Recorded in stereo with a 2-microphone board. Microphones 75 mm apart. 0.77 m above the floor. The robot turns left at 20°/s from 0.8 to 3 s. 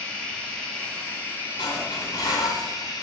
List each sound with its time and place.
0.0 s running water: 170° left, 4.5 m; by 3.0 s 125° left, 4.5 m
1.6 s dishes clattering: 75° left (ahead or behind), 4 m; by 2.7 s 50° left (ahead or behind), 4 m